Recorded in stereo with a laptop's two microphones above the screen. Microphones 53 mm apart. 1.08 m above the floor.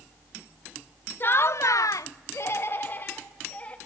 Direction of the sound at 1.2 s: 35° left (ahead or behind).